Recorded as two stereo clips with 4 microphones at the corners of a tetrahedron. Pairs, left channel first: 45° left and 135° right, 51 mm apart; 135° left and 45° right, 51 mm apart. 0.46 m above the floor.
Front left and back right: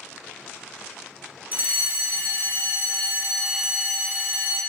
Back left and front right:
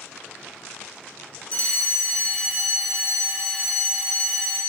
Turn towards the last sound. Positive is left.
turn(degrees=-170)